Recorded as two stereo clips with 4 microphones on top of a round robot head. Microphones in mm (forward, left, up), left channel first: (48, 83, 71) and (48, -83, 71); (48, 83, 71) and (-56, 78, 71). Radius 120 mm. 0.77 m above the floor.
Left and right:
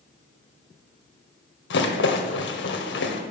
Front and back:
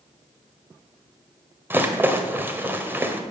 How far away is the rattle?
About 1.7 m.